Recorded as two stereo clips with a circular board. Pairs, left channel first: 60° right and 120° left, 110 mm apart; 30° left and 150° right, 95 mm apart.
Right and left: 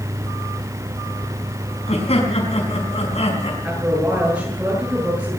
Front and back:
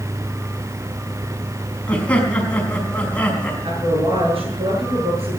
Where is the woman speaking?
165° right, 8 m.